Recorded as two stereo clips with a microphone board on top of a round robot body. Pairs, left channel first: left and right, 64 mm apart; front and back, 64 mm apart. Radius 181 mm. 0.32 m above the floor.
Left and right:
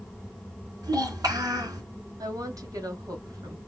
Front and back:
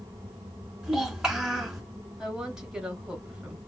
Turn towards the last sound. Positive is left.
turn(degrees=-105)